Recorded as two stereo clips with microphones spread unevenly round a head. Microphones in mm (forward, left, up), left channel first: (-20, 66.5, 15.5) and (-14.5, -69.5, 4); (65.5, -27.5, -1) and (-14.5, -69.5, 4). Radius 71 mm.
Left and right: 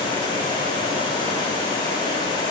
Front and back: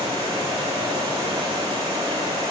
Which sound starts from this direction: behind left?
Running water, at 0.0 s.